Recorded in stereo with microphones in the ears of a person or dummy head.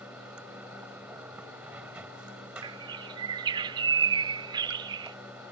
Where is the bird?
25° right (ahead or behind).